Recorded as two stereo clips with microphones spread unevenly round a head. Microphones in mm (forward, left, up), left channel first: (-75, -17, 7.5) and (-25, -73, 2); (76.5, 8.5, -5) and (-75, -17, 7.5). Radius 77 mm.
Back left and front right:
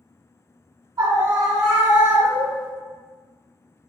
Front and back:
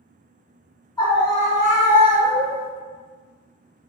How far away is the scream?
About 0.8 m.